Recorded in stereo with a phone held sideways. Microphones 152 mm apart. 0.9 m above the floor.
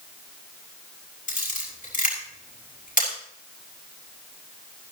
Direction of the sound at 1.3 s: 60° left (ahead or behind).